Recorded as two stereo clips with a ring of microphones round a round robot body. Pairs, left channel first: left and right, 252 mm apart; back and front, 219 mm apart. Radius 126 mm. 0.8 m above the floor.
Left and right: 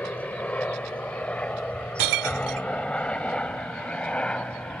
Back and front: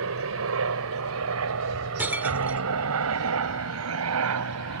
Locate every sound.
0.0 s a helicopter: 5° left
2.0 s breaking glass: 85° right